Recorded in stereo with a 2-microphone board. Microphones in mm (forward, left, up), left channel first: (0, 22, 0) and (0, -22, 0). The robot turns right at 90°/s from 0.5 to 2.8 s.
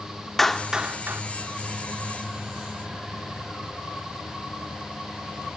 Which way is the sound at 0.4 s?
5° left (ahead or behind).